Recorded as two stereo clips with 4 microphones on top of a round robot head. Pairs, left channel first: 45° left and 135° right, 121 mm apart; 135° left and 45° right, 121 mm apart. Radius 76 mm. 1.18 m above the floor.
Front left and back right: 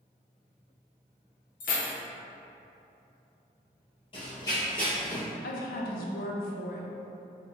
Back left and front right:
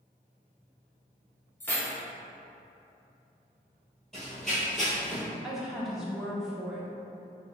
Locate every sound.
1.6 s keys jangling: 55° left, 0.7 m
4.1 s running footsteps: 50° left, 1.3 m; by 5.2 s 145° right, 1.1 m
5.4 s a woman speaking: 40° left, 0.6 m